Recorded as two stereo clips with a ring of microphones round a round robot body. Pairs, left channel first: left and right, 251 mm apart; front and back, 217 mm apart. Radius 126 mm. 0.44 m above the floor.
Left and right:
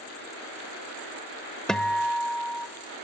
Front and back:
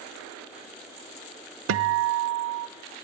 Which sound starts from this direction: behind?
A guitar, at 1.7 s.